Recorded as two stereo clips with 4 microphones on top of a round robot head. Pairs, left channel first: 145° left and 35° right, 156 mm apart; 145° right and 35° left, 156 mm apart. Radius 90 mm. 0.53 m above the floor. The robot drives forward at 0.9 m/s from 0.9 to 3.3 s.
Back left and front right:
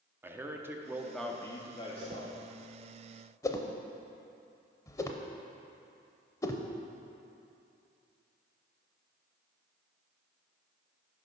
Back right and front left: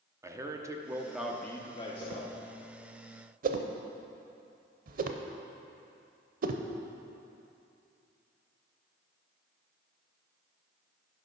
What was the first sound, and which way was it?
A man speaking, 10° left.